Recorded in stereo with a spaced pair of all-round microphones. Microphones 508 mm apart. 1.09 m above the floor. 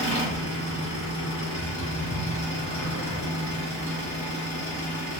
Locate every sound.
0.0 s an engine running: 20° left (ahead or behind), 1.4 m